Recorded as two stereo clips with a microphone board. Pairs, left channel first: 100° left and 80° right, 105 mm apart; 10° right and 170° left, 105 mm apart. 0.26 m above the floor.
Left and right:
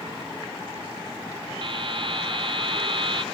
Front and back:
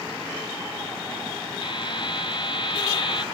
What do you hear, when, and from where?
1.6 s a buzzer: 50° right, 0.9 m